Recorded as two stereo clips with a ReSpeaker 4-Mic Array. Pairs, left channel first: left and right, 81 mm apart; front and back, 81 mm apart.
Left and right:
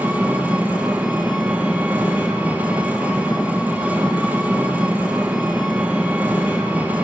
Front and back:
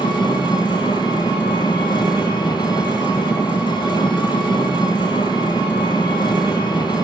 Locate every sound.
0.0 s an engine running: 20° right, 2 m